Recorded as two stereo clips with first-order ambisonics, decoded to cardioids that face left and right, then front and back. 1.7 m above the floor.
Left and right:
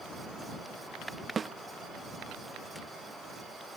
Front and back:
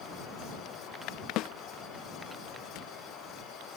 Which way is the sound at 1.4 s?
20° right.